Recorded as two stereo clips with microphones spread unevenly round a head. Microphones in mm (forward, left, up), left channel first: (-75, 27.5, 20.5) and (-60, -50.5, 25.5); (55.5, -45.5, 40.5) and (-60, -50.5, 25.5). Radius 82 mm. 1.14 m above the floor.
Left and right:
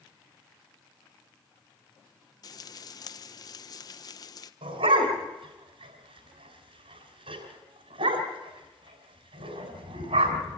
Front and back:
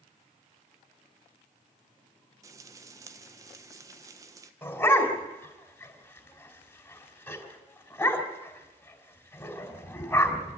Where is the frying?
125° left, 1.0 m.